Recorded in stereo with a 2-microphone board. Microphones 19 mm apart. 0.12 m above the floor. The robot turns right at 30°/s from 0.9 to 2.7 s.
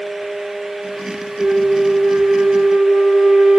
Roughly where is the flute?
Behind right.